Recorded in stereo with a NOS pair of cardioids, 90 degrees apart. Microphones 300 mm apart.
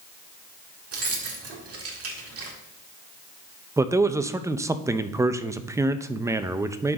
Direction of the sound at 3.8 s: 10° right.